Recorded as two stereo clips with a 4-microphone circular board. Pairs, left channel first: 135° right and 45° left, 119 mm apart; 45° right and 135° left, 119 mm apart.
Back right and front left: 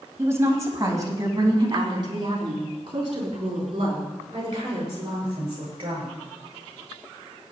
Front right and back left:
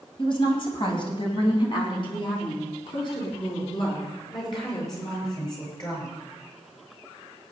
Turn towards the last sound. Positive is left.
turn(degrees=5)